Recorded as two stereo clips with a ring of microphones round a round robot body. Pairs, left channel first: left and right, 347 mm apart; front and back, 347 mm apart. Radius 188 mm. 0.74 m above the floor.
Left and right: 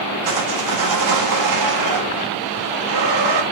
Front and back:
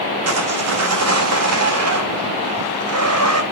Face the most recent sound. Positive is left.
turn(degrees=-135)